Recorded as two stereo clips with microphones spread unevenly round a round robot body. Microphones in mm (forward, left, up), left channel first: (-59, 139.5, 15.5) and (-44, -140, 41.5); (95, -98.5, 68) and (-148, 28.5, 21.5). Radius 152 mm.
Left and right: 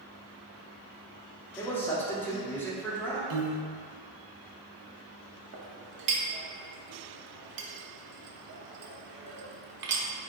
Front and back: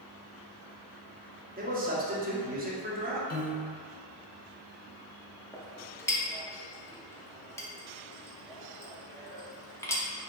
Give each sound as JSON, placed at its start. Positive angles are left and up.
{"t": 1.6, "sound": "a man speaking", "azimuth_deg": 165, "distance_m": 0.9}
{"t": 3.3, "sound": "a piano", "azimuth_deg": -85, "distance_m": 0.7}
{"t": 5.5, "sound": "a clink", "azimuth_deg": -115, "distance_m": 0.7}